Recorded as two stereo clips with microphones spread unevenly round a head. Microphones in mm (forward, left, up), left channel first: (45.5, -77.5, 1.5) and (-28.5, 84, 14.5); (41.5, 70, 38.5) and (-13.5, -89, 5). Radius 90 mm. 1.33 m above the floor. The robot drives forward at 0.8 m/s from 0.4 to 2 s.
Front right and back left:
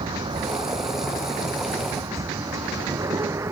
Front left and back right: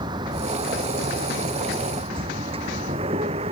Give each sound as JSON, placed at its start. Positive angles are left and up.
{"t": 0.0, "sound": "a vehicle", "azimuth_deg": -175}